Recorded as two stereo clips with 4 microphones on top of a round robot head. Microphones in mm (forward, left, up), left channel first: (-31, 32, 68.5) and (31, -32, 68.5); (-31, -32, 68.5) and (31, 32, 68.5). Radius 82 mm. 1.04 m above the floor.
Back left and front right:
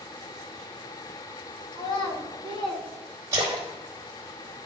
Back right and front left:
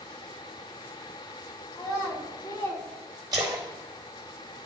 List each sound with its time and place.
1.7 s a child speaking: 165° left, 3 m
3.3 s a splash: straight ahead, 1.0 m